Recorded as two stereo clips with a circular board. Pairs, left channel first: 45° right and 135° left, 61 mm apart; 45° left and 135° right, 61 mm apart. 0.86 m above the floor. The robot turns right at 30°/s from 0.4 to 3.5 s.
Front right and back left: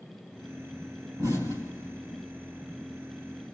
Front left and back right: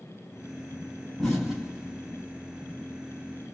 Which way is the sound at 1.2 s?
125° left.